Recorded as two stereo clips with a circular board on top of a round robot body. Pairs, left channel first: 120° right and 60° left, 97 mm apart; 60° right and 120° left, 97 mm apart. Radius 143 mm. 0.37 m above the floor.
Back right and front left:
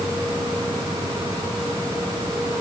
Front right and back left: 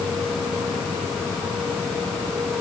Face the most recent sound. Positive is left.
No sound to turn to.